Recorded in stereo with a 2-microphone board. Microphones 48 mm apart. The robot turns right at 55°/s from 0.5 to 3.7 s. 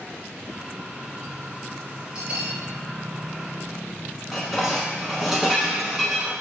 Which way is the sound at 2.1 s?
25° right (ahead or behind).